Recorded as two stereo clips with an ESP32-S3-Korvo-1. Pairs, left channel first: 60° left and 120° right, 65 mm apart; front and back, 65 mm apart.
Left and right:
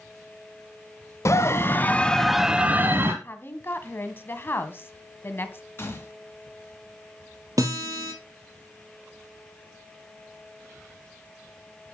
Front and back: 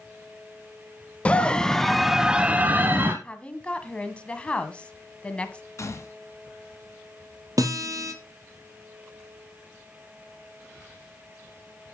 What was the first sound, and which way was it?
A scream, 65° left.